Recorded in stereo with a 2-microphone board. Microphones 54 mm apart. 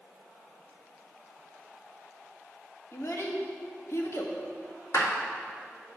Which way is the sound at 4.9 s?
70° left (ahead or behind).